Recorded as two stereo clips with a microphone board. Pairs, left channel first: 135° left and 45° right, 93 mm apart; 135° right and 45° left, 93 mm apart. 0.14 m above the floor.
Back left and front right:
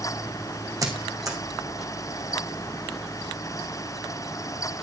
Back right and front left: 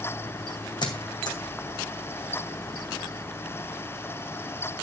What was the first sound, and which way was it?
A squeak, 95° right.